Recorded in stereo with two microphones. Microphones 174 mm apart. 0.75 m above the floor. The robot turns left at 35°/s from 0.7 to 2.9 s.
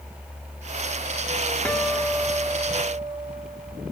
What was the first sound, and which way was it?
A guitar, 10° left.